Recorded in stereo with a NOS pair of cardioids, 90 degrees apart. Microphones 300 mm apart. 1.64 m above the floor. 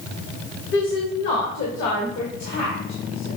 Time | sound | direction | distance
0.7 | a woman speaking | 40° left | 1.0 m